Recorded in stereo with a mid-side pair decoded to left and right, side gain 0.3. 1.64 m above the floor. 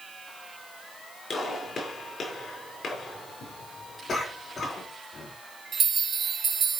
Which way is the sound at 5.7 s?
65° right.